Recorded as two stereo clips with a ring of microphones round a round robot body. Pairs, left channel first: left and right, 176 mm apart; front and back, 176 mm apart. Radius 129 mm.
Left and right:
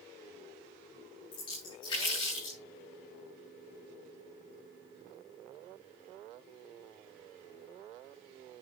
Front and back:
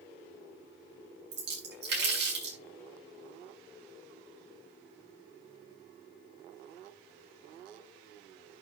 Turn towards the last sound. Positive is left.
turn(degrees=160)